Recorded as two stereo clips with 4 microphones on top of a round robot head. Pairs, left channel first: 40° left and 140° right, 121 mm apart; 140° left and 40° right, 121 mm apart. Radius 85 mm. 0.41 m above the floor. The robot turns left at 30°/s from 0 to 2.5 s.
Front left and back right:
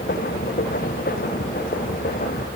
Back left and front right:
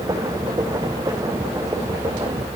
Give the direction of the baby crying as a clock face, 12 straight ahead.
No baby crying in this recording.